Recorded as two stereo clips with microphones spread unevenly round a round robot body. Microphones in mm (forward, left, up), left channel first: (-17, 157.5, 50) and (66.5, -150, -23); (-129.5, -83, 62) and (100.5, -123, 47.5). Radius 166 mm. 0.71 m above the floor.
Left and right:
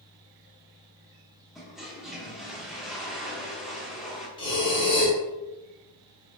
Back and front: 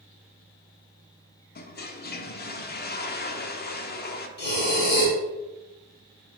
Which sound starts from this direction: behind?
Breathing, at 4.4 s.